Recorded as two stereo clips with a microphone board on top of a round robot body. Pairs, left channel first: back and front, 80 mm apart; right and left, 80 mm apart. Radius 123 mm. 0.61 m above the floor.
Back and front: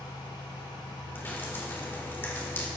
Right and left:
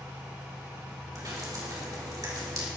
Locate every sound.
1.1 s dripping: 120° left, 3 m